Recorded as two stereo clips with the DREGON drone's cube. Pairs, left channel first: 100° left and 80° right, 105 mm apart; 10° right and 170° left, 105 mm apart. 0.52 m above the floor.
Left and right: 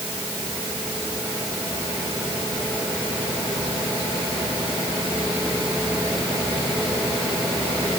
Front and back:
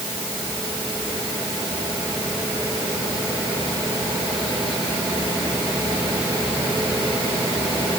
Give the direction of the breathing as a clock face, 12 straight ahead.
I don't hear breathing.